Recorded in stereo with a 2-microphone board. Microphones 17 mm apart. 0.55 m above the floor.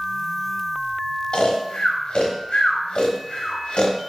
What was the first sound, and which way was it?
Snoring, 70° left (ahead or behind).